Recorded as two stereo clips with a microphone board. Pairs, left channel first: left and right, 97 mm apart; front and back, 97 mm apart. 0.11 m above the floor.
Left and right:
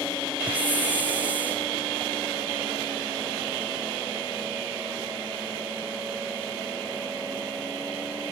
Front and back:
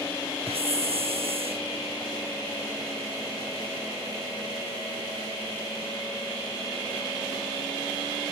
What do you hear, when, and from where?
0.5 s a hiss: 165° right